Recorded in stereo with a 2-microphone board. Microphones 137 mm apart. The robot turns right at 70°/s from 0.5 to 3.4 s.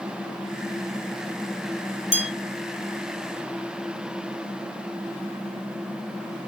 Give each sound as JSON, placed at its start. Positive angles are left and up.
{"t": 2.1, "sound": "a bell", "side_deg": -60, "distance_m": 0.8}